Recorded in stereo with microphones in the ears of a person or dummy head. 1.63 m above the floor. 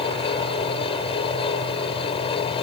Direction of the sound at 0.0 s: 35° left (ahead or behind).